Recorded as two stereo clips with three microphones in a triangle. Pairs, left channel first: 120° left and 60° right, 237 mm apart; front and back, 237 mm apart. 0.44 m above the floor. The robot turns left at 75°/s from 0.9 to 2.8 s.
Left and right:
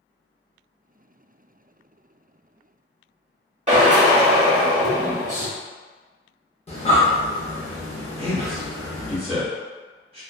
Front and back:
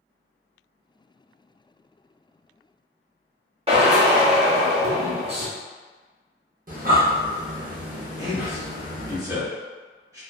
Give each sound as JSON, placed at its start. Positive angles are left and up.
{"t": 3.7, "sound": "a drill", "azimuth_deg": -115, "distance_m": 0.8}
{"t": 6.7, "sound": "breathing", "azimuth_deg": 165, "distance_m": 0.7}
{"t": 8.2, "sound": "a man speaking", "azimuth_deg": -110, "distance_m": 1.1}